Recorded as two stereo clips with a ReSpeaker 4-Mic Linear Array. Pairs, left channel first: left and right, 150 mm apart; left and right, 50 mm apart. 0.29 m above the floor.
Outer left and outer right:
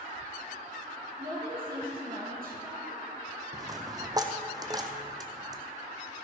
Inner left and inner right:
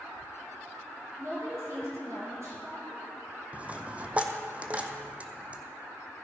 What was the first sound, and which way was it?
A woman speaking, 75° right (ahead or behind).